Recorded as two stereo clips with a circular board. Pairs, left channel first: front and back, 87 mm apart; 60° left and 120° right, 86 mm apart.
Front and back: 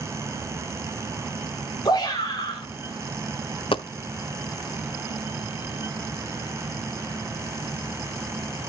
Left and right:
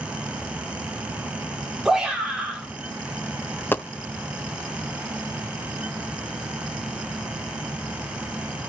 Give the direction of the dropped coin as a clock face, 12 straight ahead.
12 o'clock.